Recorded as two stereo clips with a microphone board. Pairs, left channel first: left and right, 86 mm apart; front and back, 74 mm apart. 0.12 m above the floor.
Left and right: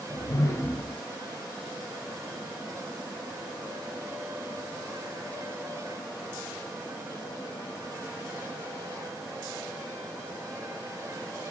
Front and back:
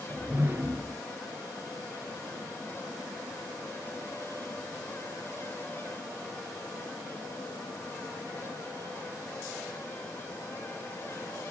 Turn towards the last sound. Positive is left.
turn(degrees=135)